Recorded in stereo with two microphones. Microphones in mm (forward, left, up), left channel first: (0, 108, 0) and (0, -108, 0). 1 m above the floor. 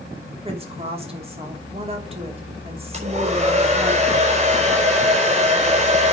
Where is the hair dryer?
30° right (ahead or behind), 4.5 m.